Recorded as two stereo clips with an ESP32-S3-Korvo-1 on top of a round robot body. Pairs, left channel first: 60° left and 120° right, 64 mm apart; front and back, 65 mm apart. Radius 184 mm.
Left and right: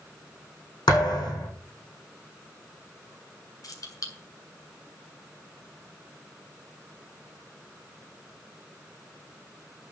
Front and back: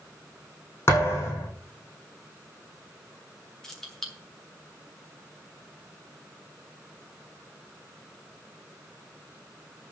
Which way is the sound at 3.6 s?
80° left.